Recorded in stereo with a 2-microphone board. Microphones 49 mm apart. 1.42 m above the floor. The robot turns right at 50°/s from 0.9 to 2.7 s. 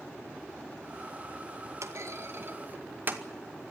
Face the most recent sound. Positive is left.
turn(degrees=-40)  # may be behind; listen again after turning